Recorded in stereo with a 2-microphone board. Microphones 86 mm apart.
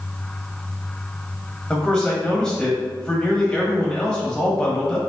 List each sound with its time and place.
1.7 s a man speaking: 10° left (ahead or behind), 1.2 m